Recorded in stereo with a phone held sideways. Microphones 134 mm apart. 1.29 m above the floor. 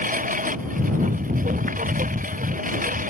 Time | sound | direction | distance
0.0 | a lawn mower | 85° right | ?